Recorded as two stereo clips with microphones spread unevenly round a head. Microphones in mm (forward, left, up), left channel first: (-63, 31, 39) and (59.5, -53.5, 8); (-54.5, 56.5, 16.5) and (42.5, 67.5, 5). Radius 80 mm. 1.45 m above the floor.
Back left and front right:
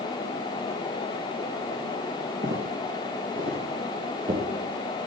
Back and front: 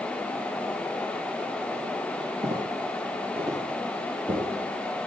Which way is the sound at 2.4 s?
Straight ahead.